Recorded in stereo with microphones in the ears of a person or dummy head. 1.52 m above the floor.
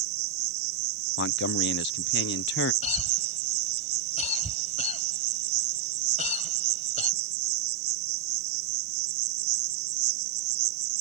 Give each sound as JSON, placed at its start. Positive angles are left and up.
{"t": 0.0, "sound": "an insect", "side_deg": -60}
{"t": 1.2, "sound": "a man speaking", "side_deg": 60}
{"t": 2.8, "sound": "a cough", "side_deg": 35}